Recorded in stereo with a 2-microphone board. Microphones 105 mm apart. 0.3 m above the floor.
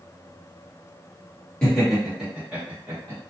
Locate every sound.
1.6 s laughter: 5° left (ahead or behind), 1.4 m; by 3.2 s 25° right (ahead or behind), 1.6 m